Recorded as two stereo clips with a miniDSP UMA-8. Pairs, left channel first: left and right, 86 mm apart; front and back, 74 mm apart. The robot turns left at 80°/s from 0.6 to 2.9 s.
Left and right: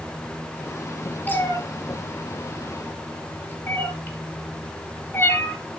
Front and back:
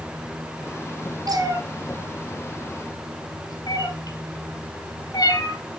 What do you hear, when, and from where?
1.3 s a cat meowing: 160° left, 4 m; by 5.6 s 25° left, 4 m